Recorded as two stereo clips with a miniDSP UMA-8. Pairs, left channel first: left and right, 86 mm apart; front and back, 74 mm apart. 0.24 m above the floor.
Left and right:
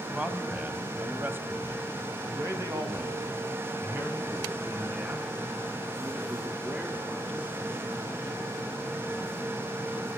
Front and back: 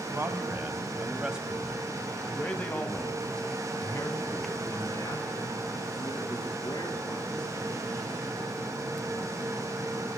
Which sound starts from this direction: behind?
A man speaking, at 0.1 s.